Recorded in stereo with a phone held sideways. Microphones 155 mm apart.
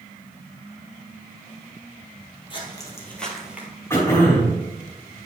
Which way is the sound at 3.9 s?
15° left (ahead or behind).